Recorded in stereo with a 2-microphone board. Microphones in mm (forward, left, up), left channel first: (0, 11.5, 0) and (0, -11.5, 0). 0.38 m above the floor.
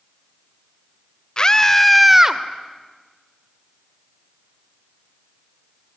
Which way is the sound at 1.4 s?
30° left (ahead or behind).